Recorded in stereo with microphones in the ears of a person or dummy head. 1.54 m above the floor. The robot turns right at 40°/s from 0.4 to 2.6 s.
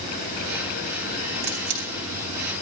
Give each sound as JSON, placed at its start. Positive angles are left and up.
{"t": 1.4, "sound": "a camera shutter", "side_deg": -45, "distance_m": 2.5}